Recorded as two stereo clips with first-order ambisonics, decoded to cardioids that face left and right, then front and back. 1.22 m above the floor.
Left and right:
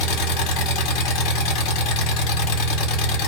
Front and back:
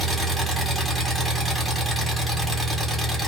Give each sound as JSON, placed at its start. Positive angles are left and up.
{"t": 0.0, "sound": "an engine running", "azimuth_deg": 95, "distance_m": 1.2}